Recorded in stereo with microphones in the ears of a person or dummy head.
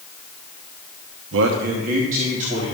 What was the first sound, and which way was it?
A man speaking, 75° right (ahead or behind).